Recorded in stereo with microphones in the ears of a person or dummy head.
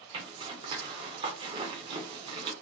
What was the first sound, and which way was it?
A zipper, 25° right (ahead or behind).